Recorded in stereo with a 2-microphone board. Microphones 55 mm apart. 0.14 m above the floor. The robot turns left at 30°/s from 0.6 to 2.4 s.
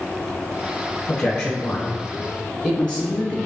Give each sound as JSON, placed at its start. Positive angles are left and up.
{"t": 1.1, "sound": "a man speaking", "side_deg": 25, "distance_m": 1.1}